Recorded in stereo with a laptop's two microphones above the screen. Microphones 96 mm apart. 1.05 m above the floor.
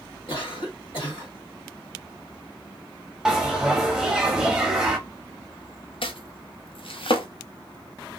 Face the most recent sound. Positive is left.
turn(degrees=70)  # may be behind; listen again after turning